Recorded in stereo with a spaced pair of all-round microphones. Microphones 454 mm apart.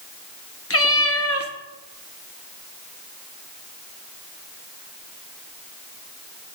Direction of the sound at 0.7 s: 30° left (ahead or behind).